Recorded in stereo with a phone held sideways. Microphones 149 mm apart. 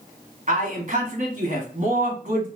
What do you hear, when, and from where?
0.5 s a man speaking: 55° right (ahead or behind), 1.3 m